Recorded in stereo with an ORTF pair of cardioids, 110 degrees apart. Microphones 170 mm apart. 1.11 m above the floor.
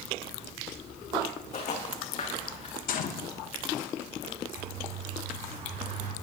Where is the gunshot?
55° left, 1.2 m.